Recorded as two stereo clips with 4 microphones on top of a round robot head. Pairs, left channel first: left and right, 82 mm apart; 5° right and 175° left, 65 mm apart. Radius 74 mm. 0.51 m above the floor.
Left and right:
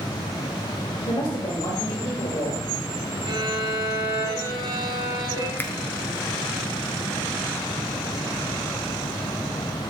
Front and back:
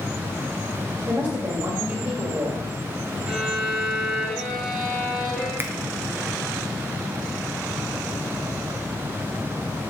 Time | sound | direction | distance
1.1 | a woman speaking | 125° left | 1.8 m
3.3 | a violin | 105° right | 1.8 m
5.6 | a finger snap | 140° left | 0.9 m